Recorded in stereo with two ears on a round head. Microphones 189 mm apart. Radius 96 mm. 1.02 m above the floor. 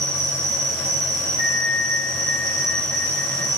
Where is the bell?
30° right (ahead or behind), 1.2 m.